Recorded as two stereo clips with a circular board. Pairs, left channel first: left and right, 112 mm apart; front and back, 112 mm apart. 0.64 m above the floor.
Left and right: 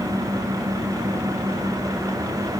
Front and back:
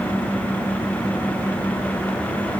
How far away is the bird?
I don't hear a bird.